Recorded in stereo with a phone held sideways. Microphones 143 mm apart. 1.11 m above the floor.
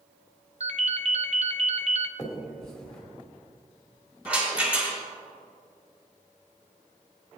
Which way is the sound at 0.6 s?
55° right (ahead or behind).